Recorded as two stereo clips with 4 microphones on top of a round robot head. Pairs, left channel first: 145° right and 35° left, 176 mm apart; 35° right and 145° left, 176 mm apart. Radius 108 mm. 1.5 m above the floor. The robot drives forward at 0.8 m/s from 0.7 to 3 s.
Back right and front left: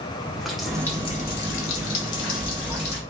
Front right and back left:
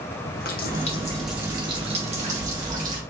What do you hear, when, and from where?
0.2 s a running tap: 50° right, 0.6 m; by 3.0 s 170° right, 1.7 m